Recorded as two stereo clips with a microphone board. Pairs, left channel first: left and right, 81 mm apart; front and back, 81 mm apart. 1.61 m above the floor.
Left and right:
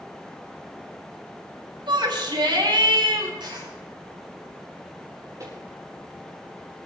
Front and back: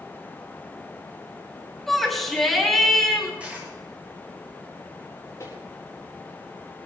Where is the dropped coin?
105° right, 7.5 m.